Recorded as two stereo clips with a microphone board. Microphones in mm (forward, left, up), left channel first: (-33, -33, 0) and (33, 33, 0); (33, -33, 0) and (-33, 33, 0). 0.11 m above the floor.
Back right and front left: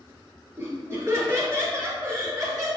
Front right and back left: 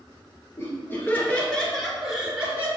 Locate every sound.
0.6 s laughter: straight ahead, 2.5 m; by 2.7 s 80° left, 2 m